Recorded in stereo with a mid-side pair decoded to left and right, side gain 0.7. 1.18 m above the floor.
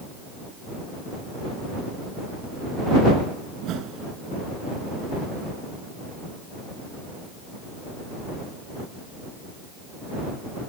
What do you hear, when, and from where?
3.6 s a whoosh: 50° right